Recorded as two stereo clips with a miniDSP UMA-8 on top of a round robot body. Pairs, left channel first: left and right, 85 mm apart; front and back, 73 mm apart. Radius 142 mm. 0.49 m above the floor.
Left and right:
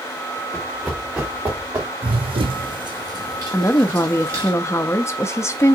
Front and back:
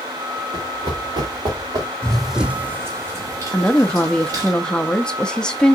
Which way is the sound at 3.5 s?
70° left.